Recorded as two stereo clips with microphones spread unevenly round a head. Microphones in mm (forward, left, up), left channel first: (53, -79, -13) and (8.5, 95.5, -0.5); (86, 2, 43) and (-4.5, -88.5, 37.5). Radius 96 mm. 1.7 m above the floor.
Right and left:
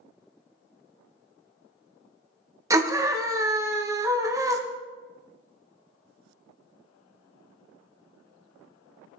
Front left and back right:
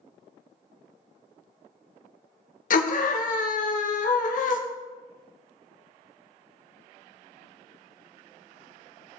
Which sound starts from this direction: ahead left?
A scream, at 2.7 s.